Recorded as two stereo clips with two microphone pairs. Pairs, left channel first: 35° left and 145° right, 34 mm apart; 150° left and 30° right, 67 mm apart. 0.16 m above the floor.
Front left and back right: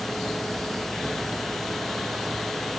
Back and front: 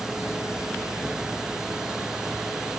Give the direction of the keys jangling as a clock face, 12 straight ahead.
I don't hear keys jangling.